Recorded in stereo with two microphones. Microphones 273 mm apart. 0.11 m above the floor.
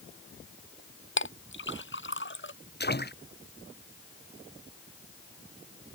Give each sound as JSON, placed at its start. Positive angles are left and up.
{"t": 1.2, "sound": "a clink", "side_deg": 40}
{"t": 2.8, "sound": "a splash", "side_deg": 35}